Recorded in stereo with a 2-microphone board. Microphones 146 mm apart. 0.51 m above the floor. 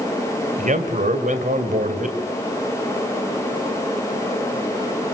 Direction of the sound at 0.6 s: 60° right (ahead or behind).